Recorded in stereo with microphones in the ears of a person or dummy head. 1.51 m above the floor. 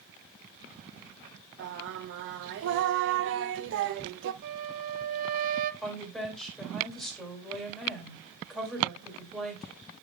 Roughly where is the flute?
Right.